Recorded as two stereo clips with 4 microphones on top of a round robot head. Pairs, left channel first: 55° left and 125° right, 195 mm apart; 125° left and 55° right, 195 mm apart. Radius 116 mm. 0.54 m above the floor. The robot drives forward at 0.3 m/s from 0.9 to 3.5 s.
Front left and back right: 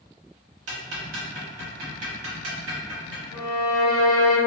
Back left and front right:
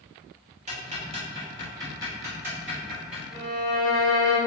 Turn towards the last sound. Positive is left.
turn(degrees=-170)